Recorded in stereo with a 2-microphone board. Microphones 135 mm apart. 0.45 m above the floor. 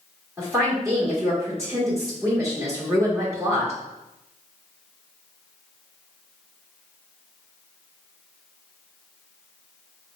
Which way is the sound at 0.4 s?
20° right (ahead or behind).